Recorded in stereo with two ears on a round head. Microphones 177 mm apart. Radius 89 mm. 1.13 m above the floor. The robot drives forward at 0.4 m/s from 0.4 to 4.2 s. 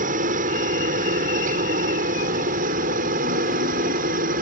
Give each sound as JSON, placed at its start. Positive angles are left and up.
{"t": 0.0, "sound": "a helicopter", "side_deg": -40}